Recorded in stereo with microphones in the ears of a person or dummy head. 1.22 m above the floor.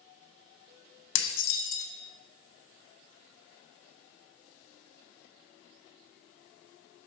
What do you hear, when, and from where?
1.1 s dishes clattering: 75° left (ahead or behind), 0.9 m